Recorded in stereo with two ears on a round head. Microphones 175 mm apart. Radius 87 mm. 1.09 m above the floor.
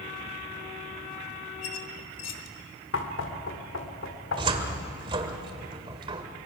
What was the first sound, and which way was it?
A squeak, 70° left (ahead or behind).